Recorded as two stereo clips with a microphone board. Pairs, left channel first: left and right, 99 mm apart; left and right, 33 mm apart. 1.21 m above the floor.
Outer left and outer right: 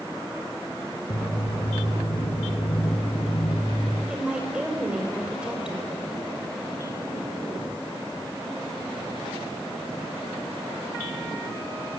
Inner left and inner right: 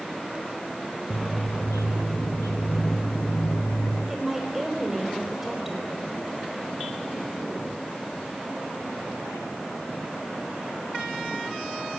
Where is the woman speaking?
10° right (ahead or behind), 4.5 m.